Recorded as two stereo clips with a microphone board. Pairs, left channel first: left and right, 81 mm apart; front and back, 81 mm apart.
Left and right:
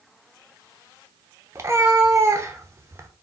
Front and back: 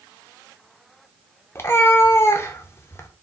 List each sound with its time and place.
1.6 s a cat meowing: 50° right, 0.7 m